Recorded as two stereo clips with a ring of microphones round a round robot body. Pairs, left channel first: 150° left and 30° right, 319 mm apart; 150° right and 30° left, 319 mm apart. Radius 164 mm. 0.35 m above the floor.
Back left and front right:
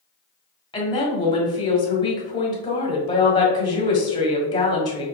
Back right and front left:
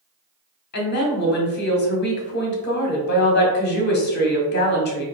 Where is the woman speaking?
145° right, 1.0 m.